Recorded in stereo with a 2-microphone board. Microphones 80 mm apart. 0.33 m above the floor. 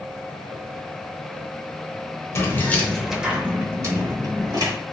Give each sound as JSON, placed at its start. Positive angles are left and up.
{"t": 2.4, "sound": "keys jangling", "side_deg": 35, "distance_m": 0.7}